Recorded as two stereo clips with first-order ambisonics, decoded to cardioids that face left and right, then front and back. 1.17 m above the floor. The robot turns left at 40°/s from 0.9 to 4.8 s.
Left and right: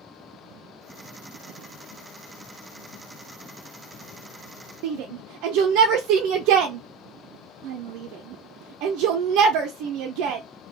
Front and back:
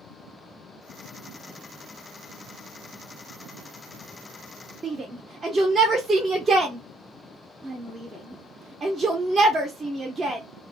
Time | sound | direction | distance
4.8 | a shout | 110° right | 0.5 m